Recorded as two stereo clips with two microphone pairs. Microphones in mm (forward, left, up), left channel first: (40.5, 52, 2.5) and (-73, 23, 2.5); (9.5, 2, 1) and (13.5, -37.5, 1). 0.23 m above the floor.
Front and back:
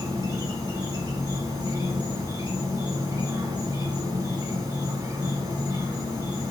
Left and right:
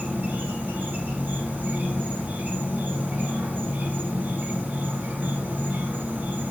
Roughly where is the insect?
Behind right.